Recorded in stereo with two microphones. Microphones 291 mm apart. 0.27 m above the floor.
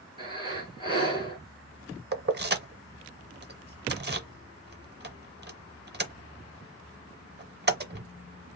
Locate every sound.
0.2 s breathing: 15° right (ahead or behind), 4 m
2.1 s keys jangling: 35° right (ahead or behind), 0.7 m